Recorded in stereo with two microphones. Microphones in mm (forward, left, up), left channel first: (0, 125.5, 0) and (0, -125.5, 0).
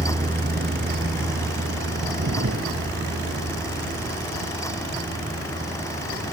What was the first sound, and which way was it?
A vehicle, 30° right (ahead or behind).